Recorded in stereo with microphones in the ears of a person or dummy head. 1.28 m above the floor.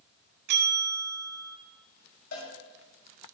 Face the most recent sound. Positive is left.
turn(degrees=65)  # may be behind; listen again after turning